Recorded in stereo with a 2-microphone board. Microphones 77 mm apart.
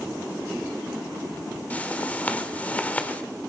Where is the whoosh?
20° left (ahead or behind), 1.4 m.